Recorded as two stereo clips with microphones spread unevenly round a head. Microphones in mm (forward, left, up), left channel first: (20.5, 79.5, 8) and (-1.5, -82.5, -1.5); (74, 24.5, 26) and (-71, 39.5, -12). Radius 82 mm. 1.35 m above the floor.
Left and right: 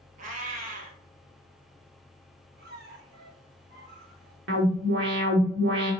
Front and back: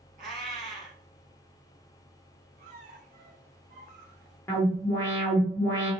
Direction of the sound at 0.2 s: 135° right.